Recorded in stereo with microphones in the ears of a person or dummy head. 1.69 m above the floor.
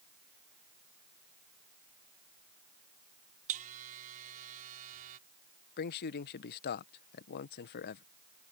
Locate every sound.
3.5 s a buzzer: 45° right (ahead or behind)
5.8 s a man speaking: 60° left (ahead or behind)